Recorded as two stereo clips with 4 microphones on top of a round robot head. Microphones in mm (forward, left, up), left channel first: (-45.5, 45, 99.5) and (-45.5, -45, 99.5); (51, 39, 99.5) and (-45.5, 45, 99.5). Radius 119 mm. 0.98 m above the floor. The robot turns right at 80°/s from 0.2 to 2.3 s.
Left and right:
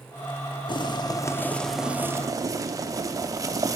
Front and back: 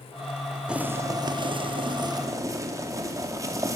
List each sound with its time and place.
0.7 s boiling: 95° left, 0.8 m; by 3.8 s 135° right, 0.8 m